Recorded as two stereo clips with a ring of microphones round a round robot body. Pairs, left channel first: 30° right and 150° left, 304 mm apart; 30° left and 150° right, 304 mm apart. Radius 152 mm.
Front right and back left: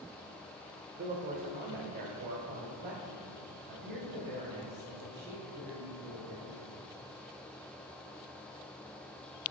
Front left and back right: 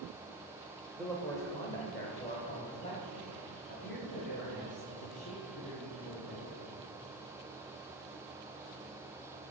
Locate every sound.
1.0 s a man speaking: 115° left, 1.0 m; by 6.7 s 90° left, 3.5 m